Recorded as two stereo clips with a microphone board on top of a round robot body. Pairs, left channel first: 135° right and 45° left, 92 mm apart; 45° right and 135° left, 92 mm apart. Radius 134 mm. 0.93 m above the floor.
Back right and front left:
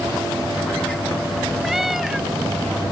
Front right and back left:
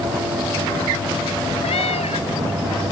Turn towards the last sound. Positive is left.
turn(degrees=-40)